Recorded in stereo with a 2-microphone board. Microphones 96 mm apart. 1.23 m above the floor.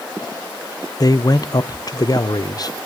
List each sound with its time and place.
1.0 s a man speaking: 45° left (ahead or behind), 0.6 m